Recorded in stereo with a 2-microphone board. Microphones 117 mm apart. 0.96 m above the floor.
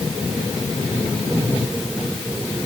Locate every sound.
Only background noise.